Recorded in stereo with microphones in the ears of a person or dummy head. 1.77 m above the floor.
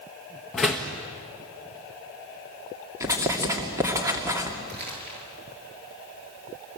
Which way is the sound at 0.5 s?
5° left (ahead or behind).